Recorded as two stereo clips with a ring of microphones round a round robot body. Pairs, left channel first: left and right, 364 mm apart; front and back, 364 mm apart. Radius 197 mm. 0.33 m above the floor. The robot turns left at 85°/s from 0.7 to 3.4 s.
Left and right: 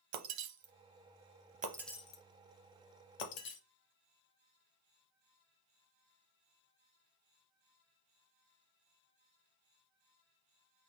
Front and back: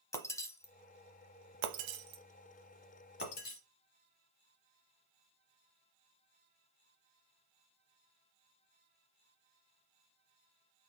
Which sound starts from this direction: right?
Breaking glass, at 0.1 s.